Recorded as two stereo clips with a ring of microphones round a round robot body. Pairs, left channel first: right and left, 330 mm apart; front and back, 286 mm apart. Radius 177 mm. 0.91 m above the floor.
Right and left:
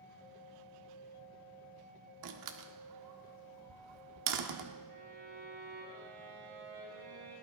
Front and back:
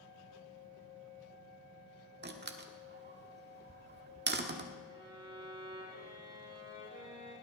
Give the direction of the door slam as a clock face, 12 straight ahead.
8 o'clock.